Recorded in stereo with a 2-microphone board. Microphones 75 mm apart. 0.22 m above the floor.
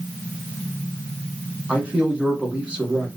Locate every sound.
1.7 s a man speaking: 15° right (ahead or behind), 2.5 m